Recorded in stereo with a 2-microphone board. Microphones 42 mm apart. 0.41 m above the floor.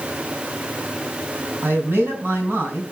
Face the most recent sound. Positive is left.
turn(degrees=-50)  # may be behind; listen again after turning